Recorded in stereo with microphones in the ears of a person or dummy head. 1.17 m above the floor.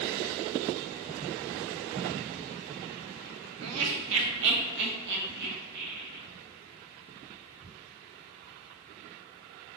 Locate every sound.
3.6 s laughter: 80° right, 0.6 m; by 6.2 s 60° right (ahead or behind), 2 m